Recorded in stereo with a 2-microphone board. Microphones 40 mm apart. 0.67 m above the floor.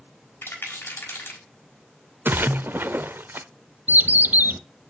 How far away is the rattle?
About 3.5 m.